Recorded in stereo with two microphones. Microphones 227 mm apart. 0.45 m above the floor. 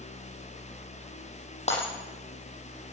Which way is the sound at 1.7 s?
30° left (ahead or behind).